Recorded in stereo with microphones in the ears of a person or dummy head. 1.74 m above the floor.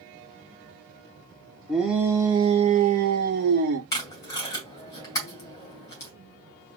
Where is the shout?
Centre (ahead or behind), 1.0 m; by 3.8 s 65° right (ahead or behind), 1.3 m.